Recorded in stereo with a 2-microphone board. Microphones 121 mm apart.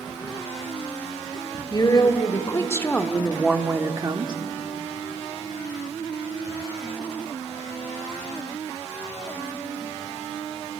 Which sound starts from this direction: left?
A woman speaking, at 1.7 s.